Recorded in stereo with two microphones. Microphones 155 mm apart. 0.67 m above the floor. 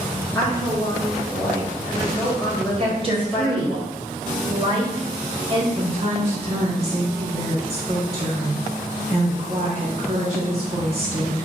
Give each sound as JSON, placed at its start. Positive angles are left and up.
{"t": 0.3, "sound": "a woman speaking", "side_deg": 10, "distance_m": 1.5}
{"t": 2.8, "sound": "a woman speaking", "side_deg": -35, "distance_m": 0.9}
{"t": 5.8, "sound": "a woman speaking", "side_deg": -45, "distance_m": 0.8}